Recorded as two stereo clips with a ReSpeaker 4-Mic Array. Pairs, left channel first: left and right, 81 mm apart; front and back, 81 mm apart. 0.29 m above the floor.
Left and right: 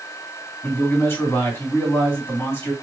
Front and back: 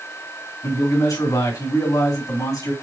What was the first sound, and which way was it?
A man speaking, 35° left.